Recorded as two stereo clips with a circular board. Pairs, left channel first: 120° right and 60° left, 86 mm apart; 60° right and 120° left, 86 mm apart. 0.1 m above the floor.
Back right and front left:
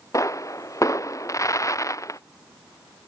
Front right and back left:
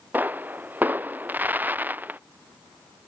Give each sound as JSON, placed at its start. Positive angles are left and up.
{"t": 0.1, "sound": "a pop", "azimuth_deg": -170}